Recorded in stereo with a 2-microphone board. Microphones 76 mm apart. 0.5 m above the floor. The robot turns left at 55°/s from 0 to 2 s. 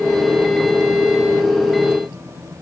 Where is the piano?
No piano in this recording.